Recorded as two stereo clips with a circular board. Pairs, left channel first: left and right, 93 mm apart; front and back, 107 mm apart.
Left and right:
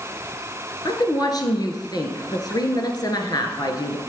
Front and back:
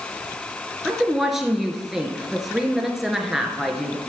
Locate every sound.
0.8 s a woman speaking: 95° left, 1.4 m